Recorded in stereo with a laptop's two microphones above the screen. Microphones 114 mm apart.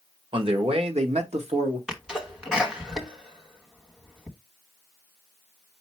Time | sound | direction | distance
0.3 | a man speaking | 50° right (ahead or behind) | 1.4 m
1.9 | a sneeze | 5° right (ahead or behind) | 1.1 m